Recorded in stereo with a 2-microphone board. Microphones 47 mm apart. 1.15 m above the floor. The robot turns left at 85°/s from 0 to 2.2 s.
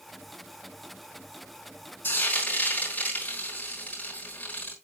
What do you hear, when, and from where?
2.0 s frying: 50° left (ahead or behind), 4.5 m; by 4.7 s 35° left (ahead or behind), 4.5 m